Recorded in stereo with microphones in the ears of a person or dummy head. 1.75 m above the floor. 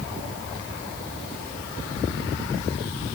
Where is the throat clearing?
I don't hear throat clearing.